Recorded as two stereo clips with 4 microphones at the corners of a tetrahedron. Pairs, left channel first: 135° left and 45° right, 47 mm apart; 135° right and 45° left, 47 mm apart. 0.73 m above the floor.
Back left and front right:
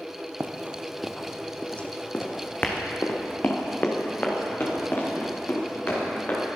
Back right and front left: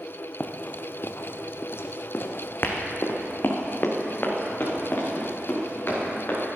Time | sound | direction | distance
0.4 | running footsteps | 80° right | 1.1 m